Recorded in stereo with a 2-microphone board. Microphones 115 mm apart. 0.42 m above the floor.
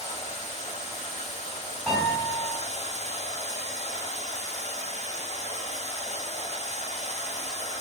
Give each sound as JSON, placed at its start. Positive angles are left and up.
{"t": 0.0, "sound": "running water", "side_deg": 75, "distance_m": 0.7}
{"t": 1.9, "sound": "a piano", "side_deg": 5, "distance_m": 2.0}